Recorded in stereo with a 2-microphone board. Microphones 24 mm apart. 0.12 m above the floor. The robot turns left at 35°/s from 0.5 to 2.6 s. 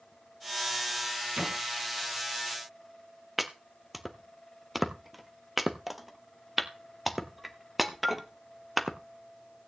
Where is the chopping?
5° right (ahead or behind), 0.8 m.